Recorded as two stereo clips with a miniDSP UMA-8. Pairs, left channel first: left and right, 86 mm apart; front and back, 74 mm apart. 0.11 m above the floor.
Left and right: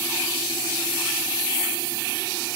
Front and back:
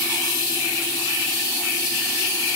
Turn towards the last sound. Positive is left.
No sound to turn to.